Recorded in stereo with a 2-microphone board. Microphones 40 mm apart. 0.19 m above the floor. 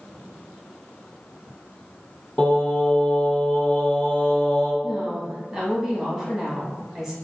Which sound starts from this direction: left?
Singing, at 2.4 s.